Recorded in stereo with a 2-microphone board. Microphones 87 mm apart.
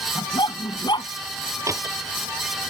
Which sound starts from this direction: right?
A door slam, at 1.7 s.